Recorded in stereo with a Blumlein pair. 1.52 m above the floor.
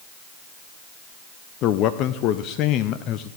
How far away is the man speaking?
About 0.6 m.